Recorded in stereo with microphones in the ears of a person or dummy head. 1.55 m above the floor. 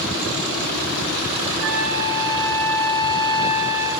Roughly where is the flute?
Right.